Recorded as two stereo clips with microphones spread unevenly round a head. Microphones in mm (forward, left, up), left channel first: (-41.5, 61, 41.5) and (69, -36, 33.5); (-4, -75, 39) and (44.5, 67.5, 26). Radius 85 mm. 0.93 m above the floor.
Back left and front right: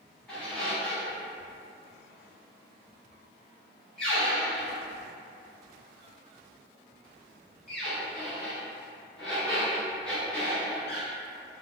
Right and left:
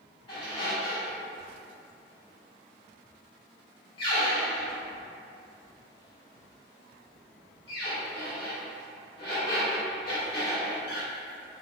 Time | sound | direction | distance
0.3 | a squeak | 145° right | 1.0 m